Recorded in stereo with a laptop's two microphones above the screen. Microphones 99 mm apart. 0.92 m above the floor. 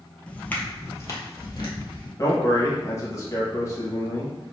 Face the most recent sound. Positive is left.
turn(degrees=30)  # may be behind; listen again after turning